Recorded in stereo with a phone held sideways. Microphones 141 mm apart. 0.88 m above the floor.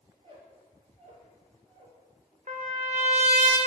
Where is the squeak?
45° right (ahead or behind), 2 m.